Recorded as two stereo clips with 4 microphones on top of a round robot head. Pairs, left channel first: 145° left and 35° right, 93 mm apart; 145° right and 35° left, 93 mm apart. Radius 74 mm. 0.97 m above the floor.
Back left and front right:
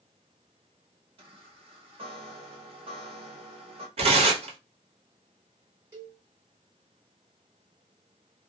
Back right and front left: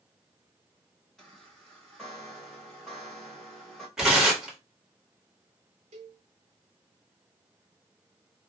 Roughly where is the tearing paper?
Ahead right.